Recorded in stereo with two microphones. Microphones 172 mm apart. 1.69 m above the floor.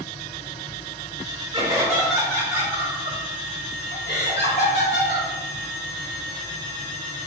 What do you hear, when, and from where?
1.5 s laughter: 25° right (ahead or behind), 0.8 m; by 5.3 s 80° left, 1.6 m